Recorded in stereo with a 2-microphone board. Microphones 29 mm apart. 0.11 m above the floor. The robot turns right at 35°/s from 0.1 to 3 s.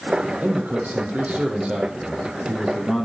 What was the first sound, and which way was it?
A man speaking, 90° right.